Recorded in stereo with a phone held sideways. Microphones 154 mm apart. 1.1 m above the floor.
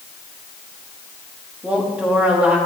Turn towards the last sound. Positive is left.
turn(degrees=-10)  # may be behind; listen again after turning